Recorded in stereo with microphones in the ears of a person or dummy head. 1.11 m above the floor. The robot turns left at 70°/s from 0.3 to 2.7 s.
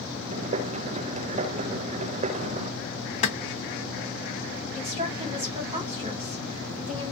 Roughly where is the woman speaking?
Right.